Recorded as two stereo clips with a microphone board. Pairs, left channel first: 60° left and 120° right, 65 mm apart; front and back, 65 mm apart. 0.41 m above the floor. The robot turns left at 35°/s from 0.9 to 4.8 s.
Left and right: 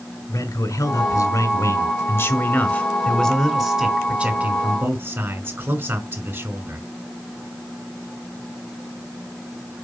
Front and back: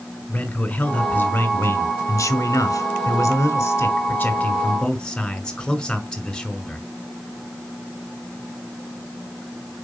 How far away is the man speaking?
About 1.8 m.